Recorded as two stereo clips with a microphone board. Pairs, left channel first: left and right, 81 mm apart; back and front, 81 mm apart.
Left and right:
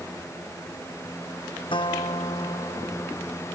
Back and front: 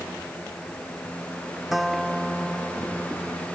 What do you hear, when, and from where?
1.7 s a guitar: 90° left